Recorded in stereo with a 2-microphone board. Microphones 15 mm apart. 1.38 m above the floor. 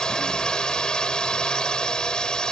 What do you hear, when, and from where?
0.0 s a drone: 85° left